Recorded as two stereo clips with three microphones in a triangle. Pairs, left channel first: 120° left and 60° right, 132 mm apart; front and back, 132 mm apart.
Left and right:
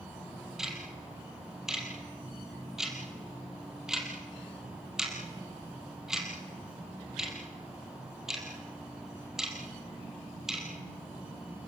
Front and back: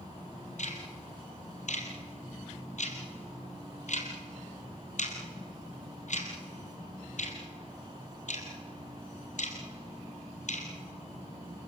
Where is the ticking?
25° left, 3.5 m.